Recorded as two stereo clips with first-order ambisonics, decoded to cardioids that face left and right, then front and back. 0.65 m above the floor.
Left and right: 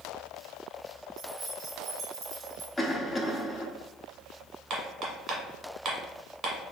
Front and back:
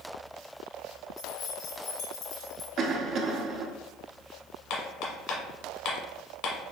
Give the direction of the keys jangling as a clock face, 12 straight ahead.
12 o'clock.